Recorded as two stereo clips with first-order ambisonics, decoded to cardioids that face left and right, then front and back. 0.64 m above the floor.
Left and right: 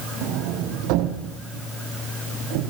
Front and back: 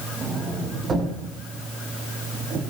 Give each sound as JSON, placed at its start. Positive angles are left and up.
{"t": 0.2, "sound": "a sliding door", "azimuth_deg": -110, "distance_m": 7.5}